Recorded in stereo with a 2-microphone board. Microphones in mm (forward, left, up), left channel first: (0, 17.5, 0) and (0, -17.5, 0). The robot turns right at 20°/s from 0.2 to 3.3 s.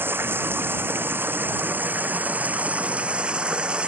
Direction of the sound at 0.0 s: 95° right.